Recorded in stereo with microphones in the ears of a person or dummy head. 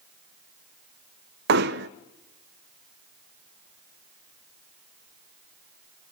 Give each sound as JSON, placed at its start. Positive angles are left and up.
{"t": 1.5, "sound": "hammering", "side_deg": -65, "distance_m": 0.7}